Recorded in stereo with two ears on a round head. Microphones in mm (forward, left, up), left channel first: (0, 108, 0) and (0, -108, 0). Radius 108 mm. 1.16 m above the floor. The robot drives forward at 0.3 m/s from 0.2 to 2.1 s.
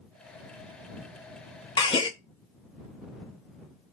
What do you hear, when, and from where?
1.8 s a gasp: 20° left (ahead or behind), 0.6 m